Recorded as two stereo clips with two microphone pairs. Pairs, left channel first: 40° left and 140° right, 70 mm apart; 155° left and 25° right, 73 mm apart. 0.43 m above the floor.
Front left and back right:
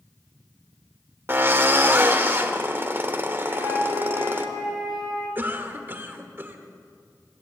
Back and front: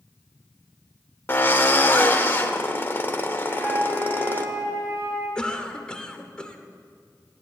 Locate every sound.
1.3 s a drill: 175° right, 0.9 m
3.5 s a flute: 30° left, 3.5 m
5.3 s a cough: 145° right, 1.1 m